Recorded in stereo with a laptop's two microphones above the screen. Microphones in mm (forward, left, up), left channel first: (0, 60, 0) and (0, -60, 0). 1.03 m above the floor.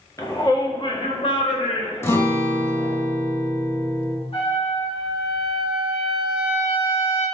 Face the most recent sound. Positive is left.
turn(degrees=50)  # may be behind; listen again after turning